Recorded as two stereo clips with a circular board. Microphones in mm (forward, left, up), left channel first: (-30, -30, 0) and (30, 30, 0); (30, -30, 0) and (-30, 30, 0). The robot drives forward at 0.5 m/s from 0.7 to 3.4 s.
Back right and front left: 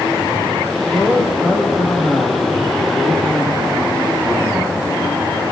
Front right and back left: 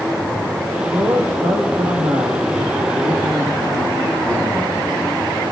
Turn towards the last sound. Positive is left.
turn(degrees=140)